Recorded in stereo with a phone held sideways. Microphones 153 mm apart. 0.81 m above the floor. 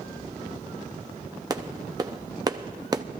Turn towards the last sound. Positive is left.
turn(degrees=-25)  # may be behind; listen again after turning